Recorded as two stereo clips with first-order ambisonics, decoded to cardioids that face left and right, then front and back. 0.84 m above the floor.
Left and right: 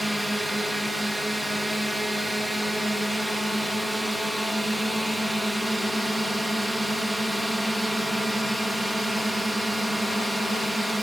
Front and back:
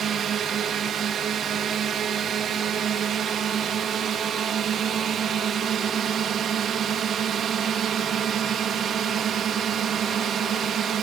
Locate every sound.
0.0 s a drone: 175° right